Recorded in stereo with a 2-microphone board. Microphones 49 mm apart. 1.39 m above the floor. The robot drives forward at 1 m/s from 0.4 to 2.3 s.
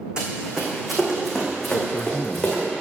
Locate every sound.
0.2 s running footsteps: 20° right (ahead or behind), 4 m; by 2.6 s 10° left (ahead or behind), 5 m
1.7 s a man speaking: 60° left (ahead or behind), 0.6 m